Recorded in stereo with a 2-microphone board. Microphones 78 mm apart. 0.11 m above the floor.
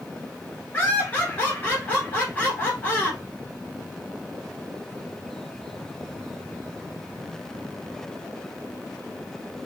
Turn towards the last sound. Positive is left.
turn(degrees=25)  # may be behind; listen again after turning